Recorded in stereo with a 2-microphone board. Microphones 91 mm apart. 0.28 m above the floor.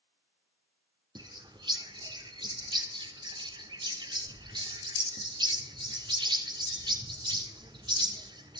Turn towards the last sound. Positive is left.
turn(degrees=-55)  # may be behind; listen again after turning